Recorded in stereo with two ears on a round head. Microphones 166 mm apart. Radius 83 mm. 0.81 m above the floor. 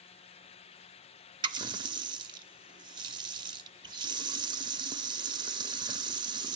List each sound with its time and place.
1.4 s a running tap: 25° right (ahead or behind), 0.7 m